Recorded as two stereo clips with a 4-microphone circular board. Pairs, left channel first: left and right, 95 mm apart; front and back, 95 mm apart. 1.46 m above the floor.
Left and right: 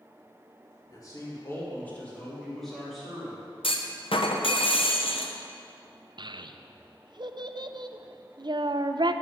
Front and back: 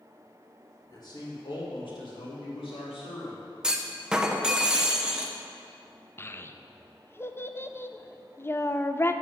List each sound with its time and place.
0.9 s a man speaking: 45° left, 2.5 m; by 3.4 s 5° right, 4 m
3.6 s a clunk: 100° left, 0.8 m
6.2 s a child speaking: 60° right, 0.5 m